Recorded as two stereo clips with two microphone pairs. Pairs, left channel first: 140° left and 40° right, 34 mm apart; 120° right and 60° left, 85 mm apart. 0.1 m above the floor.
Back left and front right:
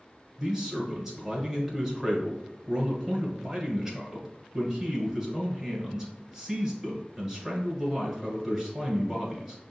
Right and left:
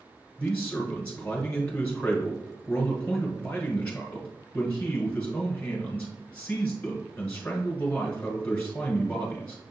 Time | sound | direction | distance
0.4 | a man speaking | 85° right | 1.6 m